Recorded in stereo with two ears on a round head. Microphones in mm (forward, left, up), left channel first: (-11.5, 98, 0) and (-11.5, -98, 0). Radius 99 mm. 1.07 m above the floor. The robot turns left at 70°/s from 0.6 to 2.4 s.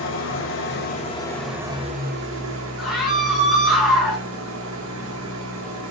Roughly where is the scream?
Centre.